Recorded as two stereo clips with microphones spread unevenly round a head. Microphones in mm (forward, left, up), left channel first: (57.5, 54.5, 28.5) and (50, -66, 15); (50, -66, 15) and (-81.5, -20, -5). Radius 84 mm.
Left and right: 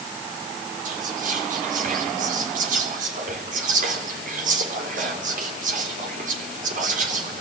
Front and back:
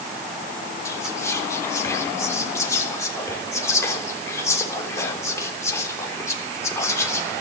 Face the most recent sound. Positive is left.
turn(degrees=-90)